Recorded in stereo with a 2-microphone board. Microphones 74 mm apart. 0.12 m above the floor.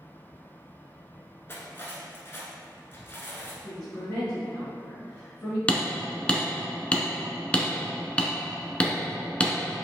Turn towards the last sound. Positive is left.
turn(degrees=15)  # may be behind; listen again after turning